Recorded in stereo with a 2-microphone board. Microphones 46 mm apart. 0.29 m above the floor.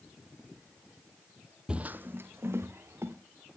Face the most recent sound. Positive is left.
turn(degrees=-65)  # may be behind; listen again after turning